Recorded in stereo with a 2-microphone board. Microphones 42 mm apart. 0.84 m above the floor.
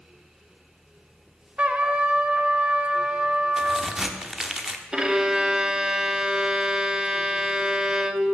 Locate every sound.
1.6 s a trumpet: 30° right (ahead or behind), 0.9 m
3.6 s a crack: 10° right (ahead or behind), 1.0 m
4.9 s a violin: 15° right (ahead or behind), 0.8 m